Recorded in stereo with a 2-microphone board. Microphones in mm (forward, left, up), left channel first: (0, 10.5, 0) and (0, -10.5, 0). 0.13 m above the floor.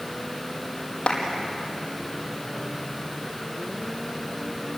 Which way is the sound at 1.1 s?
45° left (ahead or behind).